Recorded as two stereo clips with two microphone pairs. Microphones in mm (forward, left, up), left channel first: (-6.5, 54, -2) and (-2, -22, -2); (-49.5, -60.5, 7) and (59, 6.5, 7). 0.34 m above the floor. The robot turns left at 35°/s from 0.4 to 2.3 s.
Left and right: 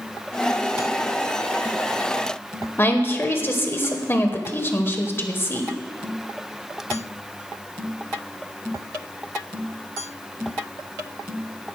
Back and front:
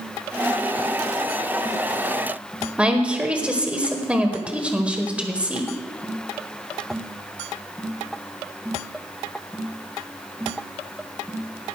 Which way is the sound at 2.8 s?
105° left.